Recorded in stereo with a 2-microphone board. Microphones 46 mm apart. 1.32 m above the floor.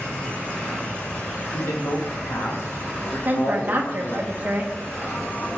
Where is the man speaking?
65° left (ahead or behind), 3 m.